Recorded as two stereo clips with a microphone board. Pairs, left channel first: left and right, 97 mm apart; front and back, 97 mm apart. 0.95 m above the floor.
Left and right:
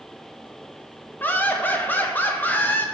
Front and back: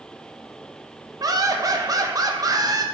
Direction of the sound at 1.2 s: 155° left.